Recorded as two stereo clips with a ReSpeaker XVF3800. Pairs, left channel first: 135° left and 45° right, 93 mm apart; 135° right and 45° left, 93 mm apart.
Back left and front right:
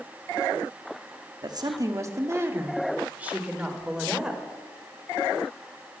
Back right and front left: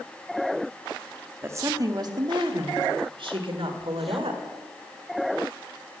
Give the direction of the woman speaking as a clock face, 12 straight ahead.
12 o'clock.